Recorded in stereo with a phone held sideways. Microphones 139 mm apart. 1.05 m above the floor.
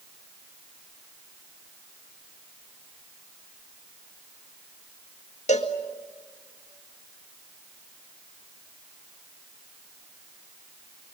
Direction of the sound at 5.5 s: 55° left (ahead or behind).